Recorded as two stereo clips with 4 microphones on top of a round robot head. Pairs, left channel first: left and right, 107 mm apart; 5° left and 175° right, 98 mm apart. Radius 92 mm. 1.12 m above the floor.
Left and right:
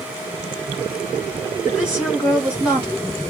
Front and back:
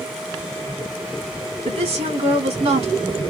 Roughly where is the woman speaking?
Behind.